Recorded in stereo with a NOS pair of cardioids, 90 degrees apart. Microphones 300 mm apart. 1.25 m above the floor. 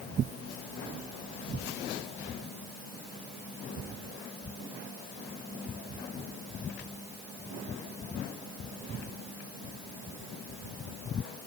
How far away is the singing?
I don't hear singing.